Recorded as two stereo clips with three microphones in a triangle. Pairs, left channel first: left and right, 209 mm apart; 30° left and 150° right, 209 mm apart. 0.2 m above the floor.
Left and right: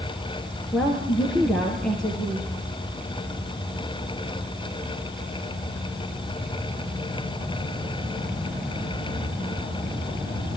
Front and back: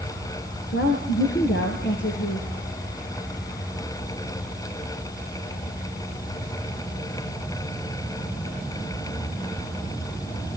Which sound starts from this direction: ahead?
A woman speaking, at 0.7 s.